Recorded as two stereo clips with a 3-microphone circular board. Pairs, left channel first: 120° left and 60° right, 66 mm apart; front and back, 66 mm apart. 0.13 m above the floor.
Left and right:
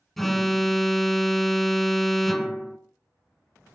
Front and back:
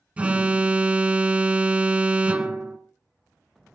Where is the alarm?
155° right, 1.1 m.